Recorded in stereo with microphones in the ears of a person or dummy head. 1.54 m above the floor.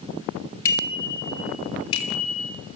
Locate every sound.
0.7 s a bicycle bell: 20° left (ahead or behind), 6 m; by 2.5 s 40° left (ahead or behind), 6 m